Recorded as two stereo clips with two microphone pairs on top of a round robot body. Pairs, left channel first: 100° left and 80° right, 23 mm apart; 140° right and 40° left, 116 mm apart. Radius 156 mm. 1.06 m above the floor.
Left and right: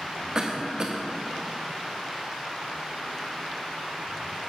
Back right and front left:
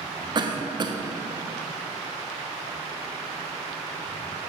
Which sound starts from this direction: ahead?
A cough, at 0.3 s.